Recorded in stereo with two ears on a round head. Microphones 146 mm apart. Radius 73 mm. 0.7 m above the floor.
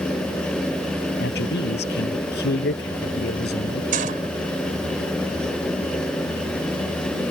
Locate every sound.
1.2 s a man speaking: 70° left (ahead or behind)
3.9 s a gunshot: 55° right (ahead or behind)